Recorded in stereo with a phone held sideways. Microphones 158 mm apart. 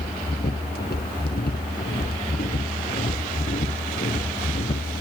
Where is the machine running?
80° left.